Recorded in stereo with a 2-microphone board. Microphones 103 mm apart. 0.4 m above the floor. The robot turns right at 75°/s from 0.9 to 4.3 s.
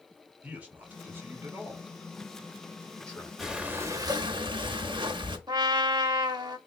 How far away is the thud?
No thud in this recording.